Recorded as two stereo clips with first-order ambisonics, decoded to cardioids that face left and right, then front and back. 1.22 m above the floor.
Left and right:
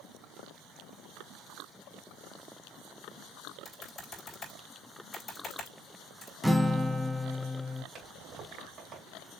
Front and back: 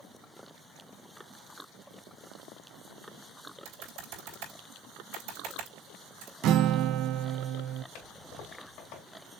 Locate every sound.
3.6 s typing on a keyboard: 165° left, 3 m
6.4 s a guitar: 175° right, 0.6 m
8.0 s a toilet flushing: 25° right, 3 m